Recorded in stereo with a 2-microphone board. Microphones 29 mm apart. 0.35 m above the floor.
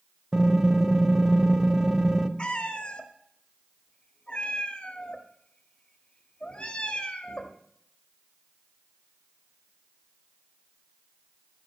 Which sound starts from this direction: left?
A cat meowing, at 2.4 s.